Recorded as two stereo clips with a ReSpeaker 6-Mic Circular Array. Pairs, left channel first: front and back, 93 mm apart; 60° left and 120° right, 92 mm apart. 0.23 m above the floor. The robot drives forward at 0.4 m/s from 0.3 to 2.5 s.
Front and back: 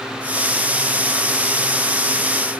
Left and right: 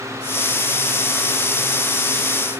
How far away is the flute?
No flute in this recording.